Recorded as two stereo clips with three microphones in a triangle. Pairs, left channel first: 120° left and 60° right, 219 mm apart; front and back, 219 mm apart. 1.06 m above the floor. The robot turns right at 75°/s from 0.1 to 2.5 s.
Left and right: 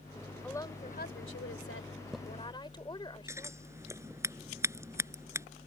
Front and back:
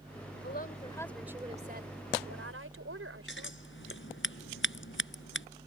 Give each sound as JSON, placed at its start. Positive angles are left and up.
{"t": 0.4, "sound": "a woman speaking", "azimuth_deg": 35}
{"t": 3.3, "sound": "scissors", "azimuth_deg": 15}